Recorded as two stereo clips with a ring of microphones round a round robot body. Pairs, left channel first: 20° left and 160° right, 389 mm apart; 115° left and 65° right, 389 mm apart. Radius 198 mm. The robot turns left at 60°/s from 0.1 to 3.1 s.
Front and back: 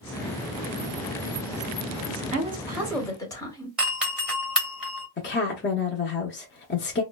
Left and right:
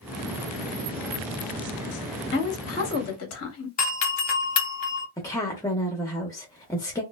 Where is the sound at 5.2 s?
40° left, 0.7 m.